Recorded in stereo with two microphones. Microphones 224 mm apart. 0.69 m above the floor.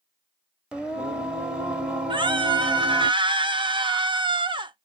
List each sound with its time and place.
0.7 s singing: 5° right (ahead or behind), 0.6 m
2.1 s a scream: 20° right (ahead or behind), 0.5 m